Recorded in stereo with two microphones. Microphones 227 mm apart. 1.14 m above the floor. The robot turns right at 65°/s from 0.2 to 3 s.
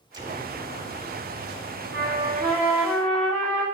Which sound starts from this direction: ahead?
An explosion, at 0.1 s.